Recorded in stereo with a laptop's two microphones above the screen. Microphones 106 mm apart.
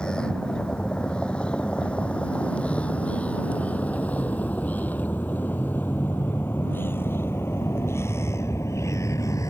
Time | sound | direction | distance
0.0 | a vehicle | 10° left (ahead or behind) | ?